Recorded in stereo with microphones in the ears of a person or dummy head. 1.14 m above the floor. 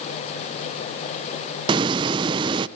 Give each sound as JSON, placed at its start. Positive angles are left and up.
{"t": 1.7, "sound": "a hiss", "side_deg": -20, "distance_m": 0.7}